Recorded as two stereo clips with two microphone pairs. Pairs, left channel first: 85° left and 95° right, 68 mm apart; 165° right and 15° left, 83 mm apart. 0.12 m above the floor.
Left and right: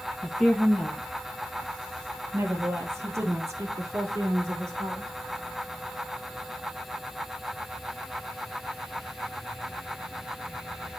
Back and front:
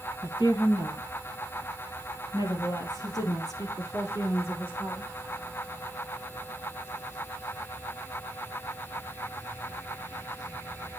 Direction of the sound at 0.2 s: 175° left.